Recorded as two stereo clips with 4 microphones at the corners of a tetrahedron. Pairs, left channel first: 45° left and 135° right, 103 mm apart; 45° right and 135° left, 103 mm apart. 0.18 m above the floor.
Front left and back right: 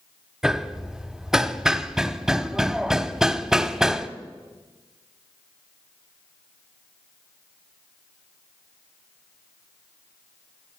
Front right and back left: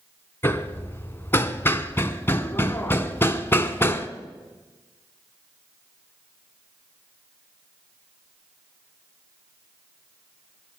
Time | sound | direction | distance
0.4 | hammering | 55° right | 0.6 m